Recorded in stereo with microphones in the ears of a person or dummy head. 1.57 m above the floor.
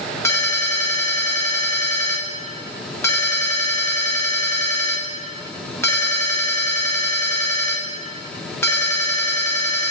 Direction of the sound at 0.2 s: 15° left (ahead or behind).